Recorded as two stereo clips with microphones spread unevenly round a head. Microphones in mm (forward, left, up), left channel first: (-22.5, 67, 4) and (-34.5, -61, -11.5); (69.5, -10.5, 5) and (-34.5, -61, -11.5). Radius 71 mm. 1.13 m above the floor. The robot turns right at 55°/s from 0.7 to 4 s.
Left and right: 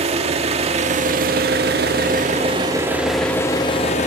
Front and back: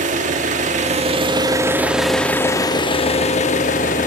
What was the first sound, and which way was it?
An engine running, 135° right.